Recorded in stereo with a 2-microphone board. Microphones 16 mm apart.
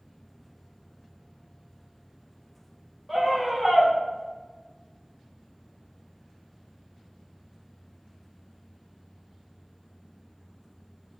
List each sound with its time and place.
3.1 s a scream: 5° right (ahead or behind), 4 m